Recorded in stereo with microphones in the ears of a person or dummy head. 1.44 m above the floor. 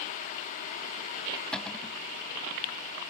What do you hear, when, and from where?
1.5 s a cupboard door: 5° left (ahead or behind)